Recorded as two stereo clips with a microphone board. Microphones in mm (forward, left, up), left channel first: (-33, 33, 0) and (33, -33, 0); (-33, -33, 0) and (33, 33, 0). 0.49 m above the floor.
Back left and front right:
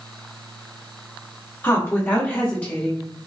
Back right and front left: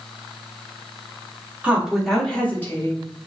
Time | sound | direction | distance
1.6 | a woman speaking | 105° left | 1.2 m